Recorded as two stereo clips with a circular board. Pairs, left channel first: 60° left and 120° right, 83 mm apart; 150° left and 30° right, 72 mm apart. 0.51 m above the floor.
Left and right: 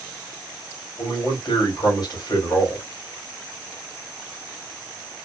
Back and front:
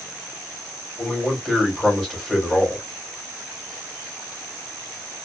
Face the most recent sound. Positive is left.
turn(degrees=55)